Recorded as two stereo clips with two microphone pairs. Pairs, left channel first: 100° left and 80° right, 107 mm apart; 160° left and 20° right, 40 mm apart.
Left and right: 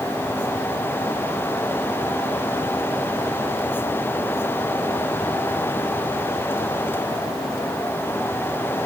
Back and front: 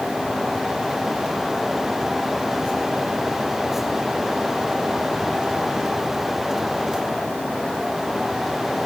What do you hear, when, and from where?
Only background noise.